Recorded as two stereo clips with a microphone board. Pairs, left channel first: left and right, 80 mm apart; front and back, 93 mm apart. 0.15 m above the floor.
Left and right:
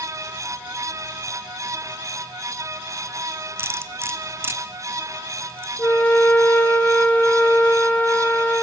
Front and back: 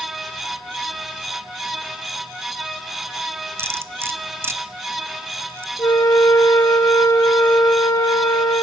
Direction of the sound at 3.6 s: 130° right.